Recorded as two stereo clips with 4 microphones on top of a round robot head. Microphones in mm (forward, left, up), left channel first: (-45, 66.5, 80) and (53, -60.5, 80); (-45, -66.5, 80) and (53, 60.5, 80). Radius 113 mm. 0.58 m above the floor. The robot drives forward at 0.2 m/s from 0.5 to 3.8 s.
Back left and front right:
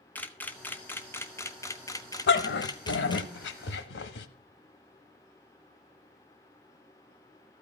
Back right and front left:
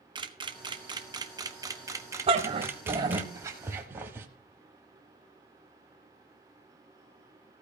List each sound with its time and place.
0.1 s a camera shutter: 60° left, 1.2 m; by 3.3 s 120° left, 1.2 m
2.3 s a dog barking: 110° left, 0.8 m; by 4.3 s 130° left, 0.9 m